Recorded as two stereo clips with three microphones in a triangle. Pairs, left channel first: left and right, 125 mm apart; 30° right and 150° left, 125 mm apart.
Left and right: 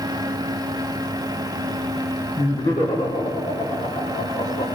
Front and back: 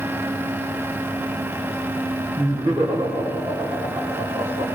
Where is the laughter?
90° left, 4.5 m.